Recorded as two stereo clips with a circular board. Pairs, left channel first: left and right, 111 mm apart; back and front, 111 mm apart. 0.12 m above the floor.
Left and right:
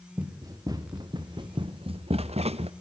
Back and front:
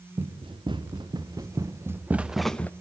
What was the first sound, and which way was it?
Running footsteps, 35° right.